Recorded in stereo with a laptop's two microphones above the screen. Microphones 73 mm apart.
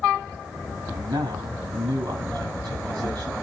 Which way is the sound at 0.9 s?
90° right.